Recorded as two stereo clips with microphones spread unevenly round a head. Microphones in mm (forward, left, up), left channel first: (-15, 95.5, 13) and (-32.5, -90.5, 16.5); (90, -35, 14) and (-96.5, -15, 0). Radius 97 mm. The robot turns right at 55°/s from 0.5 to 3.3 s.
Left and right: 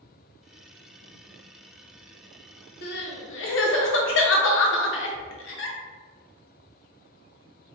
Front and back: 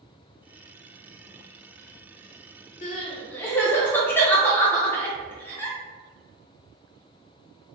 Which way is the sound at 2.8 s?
50° left.